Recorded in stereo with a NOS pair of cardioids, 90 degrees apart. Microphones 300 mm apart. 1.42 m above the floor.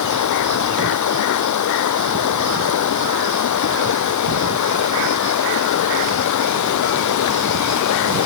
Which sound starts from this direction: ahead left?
Running water, at 0.0 s.